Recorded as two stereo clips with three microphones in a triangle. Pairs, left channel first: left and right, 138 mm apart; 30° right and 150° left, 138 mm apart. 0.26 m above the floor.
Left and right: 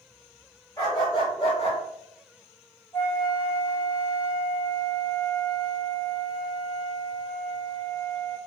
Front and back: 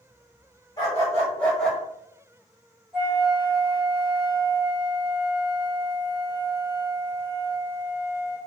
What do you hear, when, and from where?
0.8 s a dog barking: 30° left, 1.3 m; by 1.8 s 60° left, 1.0 m
2.9 s a flute: 80° left, 1.3 m